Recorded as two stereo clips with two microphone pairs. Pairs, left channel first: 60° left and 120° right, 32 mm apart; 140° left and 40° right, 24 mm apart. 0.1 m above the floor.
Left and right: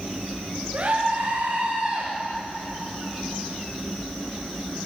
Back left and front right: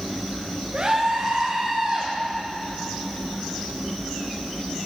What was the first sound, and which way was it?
A scream, 95° right.